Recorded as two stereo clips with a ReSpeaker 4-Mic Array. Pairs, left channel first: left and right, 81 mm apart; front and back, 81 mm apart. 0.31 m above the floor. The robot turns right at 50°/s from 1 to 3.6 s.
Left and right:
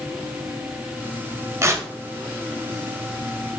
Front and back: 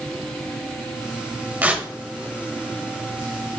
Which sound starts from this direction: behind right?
Tearing paper, at 1.6 s.